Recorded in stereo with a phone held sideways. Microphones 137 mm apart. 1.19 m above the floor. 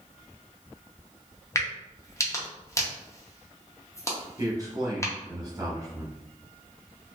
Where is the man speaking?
25° right (ahead or behind), 1.0 m.